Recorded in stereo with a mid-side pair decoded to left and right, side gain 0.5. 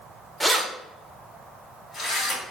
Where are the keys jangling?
Straight ahead, 0.7 m; by 2.4 s 50° left, 2 m.